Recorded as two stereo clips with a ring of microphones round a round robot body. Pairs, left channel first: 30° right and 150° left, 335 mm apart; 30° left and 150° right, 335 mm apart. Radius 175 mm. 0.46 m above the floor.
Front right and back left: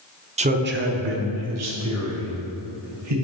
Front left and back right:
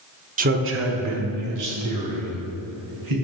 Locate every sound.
0.4 s a man speaking: 170° right, 1.0 m; by 3.1 s 175° right, 4 m